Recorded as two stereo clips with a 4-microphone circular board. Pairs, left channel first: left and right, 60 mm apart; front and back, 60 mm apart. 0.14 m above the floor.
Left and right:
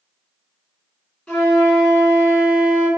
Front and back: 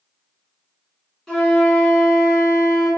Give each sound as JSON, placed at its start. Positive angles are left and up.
{"t": 1.3, "sound": "a flute", "azimuth_deg": 55, "distance_m": 1.5}